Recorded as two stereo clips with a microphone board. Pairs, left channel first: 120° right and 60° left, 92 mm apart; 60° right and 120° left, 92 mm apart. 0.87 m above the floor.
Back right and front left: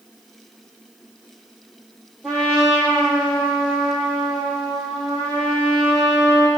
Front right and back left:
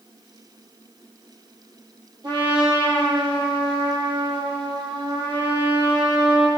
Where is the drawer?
No drawer in this recording.